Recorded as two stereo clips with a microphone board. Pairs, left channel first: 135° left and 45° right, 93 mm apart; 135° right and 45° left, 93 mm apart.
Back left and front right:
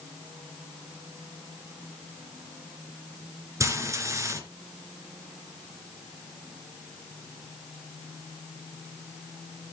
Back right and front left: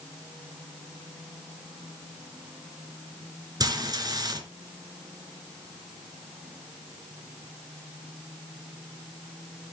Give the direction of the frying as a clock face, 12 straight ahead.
12 o'clock.